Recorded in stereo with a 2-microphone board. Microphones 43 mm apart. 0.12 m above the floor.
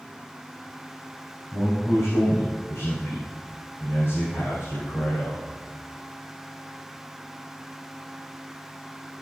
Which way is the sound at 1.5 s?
50° left (ahead or behind).